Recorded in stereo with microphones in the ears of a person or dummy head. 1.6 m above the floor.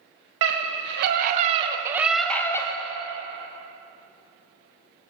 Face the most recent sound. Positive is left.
turn(degrees=25)  # may be behind; listen again after turning